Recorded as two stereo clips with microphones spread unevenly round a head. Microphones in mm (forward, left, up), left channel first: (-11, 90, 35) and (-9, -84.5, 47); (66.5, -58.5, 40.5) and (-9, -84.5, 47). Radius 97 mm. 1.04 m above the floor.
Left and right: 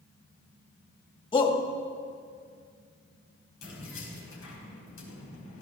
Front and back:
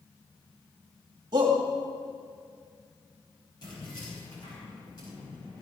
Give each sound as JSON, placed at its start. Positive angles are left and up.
{"t": 1.3, "sound": "a shout", "azimuth_deg": 150, "distance_m": 2.5}
{"t": 3.6, "sound": "keys jangling", "azimuth_deg": 80, "distance_m": 5.0}